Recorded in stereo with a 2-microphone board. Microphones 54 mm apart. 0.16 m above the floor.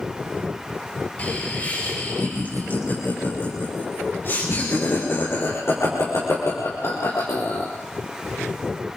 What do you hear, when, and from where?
1.2 s laughter: 30° left (ahead or behind), 6.5 m; by 7.7 s 70° left (ahead or behind), 4 m